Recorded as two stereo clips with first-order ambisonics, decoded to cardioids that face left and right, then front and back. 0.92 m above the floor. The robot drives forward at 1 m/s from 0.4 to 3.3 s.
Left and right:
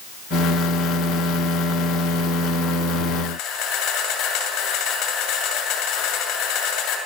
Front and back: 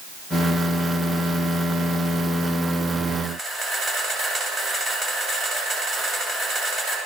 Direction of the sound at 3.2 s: 110° left.